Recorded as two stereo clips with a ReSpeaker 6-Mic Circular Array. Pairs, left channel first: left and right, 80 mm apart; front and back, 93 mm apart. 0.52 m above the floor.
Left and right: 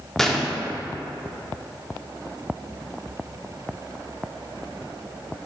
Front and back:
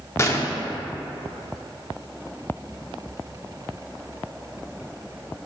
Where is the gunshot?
5° left, 0.8 m.